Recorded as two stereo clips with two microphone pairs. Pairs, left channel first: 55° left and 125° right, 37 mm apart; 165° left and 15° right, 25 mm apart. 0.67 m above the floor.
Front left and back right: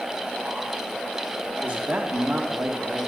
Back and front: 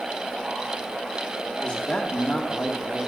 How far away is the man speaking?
About 1.2 m.